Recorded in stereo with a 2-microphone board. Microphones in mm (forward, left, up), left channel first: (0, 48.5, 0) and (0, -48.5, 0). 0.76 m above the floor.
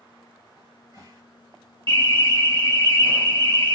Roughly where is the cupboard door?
Right.